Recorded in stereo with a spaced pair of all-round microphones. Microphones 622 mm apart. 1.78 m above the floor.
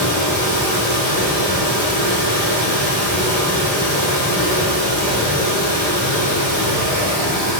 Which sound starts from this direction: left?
Running water, at 0.0 s.